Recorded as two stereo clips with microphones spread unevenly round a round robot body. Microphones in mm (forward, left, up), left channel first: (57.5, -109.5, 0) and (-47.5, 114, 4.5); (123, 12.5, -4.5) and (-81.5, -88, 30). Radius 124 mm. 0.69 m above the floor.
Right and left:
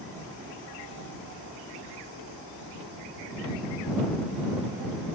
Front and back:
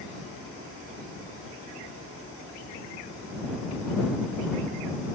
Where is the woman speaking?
I don't hear a woman speaking.